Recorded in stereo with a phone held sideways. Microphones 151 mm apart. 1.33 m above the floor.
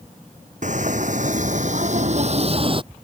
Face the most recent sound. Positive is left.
turn(degrees=-35)  # may be behind; listen again after turning